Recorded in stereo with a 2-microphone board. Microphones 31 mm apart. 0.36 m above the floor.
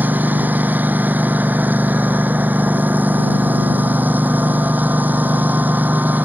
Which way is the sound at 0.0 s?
90° right.